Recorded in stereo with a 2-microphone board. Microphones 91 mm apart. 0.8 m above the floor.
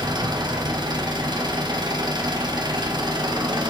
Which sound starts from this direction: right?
An engine running, at 0.0 s.